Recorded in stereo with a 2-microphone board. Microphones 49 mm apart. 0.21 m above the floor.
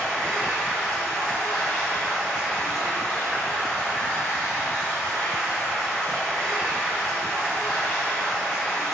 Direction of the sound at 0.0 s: 20° left (ahead or behind).